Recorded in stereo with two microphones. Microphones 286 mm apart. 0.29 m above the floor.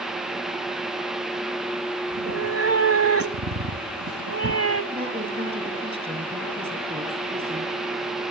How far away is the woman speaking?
About 6.5 m.